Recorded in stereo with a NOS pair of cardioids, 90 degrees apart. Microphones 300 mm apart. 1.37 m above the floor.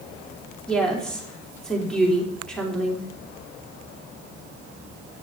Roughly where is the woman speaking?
Ahead.